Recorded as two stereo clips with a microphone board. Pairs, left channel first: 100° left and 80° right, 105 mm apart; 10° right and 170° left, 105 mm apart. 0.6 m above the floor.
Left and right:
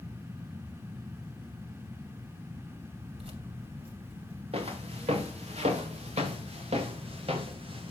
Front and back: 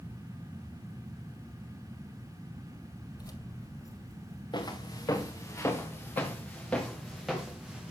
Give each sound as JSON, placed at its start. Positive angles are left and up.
{"t": 3.1, "sound": "keys jangling", "azimuth_deg": -60, "distance_m": 2.5}
{"t": 4.5, "sound": "footsteps", "azimuth_deg": -55, "distance_m": 3.5}